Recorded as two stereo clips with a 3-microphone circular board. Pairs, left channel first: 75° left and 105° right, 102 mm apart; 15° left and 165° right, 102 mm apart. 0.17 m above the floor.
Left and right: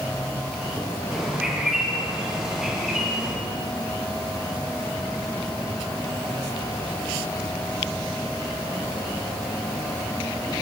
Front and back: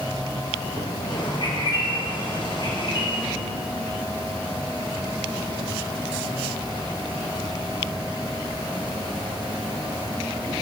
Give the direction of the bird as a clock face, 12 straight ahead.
1 o'clock.